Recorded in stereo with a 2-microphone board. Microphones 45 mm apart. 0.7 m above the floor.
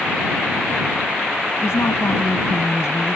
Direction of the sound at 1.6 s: 80° left.